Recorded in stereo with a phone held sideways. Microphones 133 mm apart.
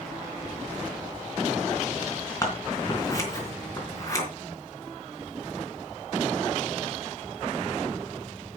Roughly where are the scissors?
Left.